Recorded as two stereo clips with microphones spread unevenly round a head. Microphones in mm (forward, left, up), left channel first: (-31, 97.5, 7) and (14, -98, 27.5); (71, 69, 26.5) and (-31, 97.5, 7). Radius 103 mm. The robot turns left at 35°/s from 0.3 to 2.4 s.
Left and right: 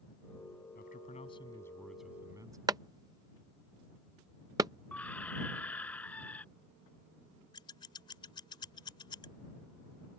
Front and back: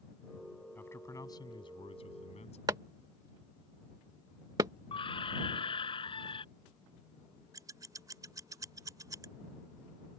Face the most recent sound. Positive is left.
turn(degrees=145)